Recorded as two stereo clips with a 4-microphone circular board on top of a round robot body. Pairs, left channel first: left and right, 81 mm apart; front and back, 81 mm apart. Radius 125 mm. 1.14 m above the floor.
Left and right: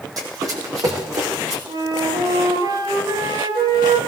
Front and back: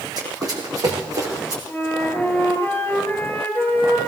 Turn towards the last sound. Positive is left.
turn(degrees=-65)